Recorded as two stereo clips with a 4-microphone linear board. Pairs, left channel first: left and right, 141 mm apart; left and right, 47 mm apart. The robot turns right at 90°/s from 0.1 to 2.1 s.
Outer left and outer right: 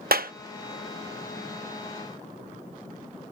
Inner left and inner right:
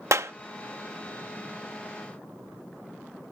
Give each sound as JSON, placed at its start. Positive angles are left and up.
{"t": 0.1, "sound": "a clap", "side_deg": -90}